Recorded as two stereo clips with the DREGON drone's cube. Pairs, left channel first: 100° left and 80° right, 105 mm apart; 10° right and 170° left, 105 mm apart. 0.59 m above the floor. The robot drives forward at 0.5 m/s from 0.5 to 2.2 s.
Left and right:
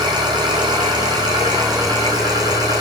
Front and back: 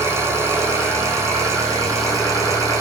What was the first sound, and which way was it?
An engine running, 125° right.